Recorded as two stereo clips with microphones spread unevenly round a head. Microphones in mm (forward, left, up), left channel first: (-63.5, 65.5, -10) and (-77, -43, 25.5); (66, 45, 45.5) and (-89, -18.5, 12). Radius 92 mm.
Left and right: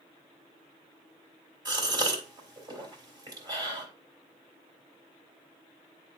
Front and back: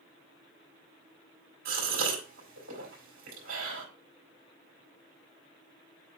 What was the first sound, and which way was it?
A gasp, 140° right.